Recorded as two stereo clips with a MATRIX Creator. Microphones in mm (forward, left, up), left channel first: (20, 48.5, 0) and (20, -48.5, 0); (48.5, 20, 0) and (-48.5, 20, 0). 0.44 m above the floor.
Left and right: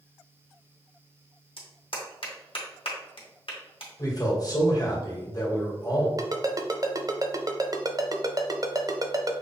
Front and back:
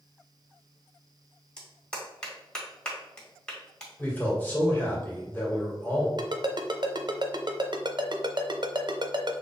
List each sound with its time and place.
1.6 s a clap: 80° left, 1.6 m
4.0 s a man speaking: 65° left, 1.8 m
6.2 s a ringtone: 140° right, 0.7 m